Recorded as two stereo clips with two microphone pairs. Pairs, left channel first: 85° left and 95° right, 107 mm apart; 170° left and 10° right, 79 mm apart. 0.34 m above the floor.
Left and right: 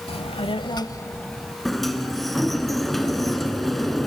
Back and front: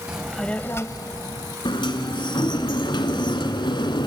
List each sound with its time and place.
0.1 s a child speaking: 70° left, 1.0 m; by 1.6 s 170° left, 1.2 m
1.6 s a sliding door: 170° left, 1.4 m